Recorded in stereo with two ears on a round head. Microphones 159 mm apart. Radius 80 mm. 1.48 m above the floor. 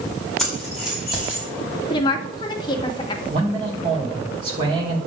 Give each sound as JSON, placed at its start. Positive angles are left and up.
{"t": 0.4, "sound": "keys jangling", "side_deg": 0, "distance_m": 4.0}
{"t": 1.9, "sound": "a woman speaking", "side_deg": 25, "distance_m": 1.7}
{"t": 3.3, "sound": "a man speaking", "side_deg": -30, "distance_m": 4.0}